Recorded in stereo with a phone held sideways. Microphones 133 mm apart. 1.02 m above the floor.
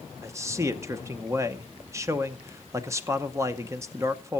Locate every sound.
0.2 s a man speaking: 20° right (ahead or behind), 0.8 m